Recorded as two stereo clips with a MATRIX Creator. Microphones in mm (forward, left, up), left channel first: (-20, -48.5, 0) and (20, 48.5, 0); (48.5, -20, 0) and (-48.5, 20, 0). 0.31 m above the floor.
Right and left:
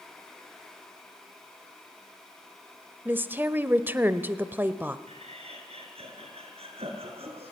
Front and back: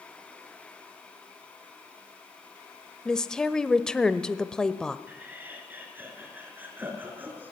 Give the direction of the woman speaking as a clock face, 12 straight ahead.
10 o'clock.